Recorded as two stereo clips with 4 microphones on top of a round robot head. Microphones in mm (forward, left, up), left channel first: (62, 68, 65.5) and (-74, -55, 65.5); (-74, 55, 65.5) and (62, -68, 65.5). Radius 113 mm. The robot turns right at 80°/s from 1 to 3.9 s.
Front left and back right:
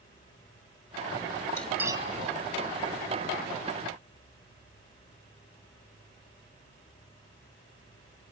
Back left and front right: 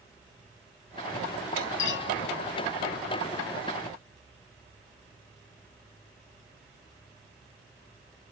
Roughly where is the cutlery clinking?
Behind left.